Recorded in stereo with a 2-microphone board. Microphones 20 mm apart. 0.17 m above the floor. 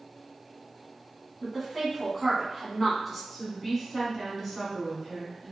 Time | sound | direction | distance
1.4 | a woman speaking | 5° right (ahead or behind) | 1.1 m
3.3 | a woman speaking | centre (ahead or behind) | 1.7 m